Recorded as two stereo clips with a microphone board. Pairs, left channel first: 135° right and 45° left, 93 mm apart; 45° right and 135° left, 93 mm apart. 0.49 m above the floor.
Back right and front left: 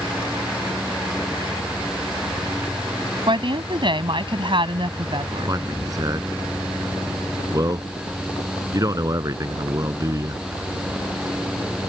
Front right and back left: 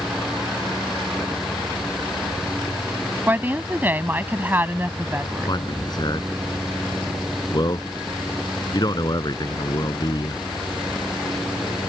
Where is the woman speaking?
65° left.